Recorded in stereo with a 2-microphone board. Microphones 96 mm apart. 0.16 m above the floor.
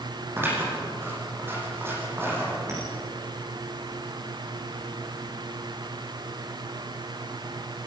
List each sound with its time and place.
0.4 s scissors: 25° right (ahead or behind), 6 m
2.7 s a clink: 30° right (ahead or behind), 9 m